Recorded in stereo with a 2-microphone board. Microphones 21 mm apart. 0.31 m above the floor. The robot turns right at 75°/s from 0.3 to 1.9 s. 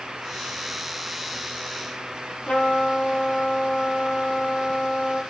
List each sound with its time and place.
2.5 s a trumpet: 75° left (ahead or behind), 6.5 m